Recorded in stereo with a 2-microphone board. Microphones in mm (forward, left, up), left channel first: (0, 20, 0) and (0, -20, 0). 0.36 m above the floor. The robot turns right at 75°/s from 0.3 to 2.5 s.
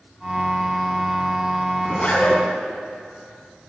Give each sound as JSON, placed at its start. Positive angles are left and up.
{"t": 1.8, "sound": "a zipper", "azimuth_deg": 20, "distance_m": 2.5}